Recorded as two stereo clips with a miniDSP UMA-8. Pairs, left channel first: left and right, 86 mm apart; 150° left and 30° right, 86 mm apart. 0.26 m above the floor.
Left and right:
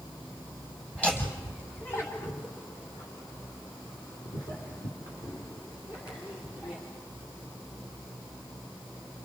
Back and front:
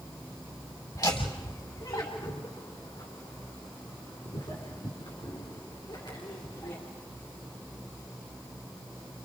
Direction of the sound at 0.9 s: 165° left.